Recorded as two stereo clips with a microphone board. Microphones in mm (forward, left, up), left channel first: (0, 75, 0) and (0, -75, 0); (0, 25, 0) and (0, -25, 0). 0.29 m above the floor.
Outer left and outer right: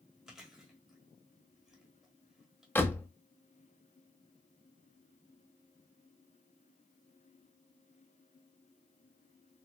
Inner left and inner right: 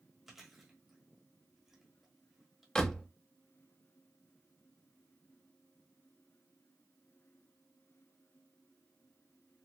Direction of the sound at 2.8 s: 15° left (ahead or behind).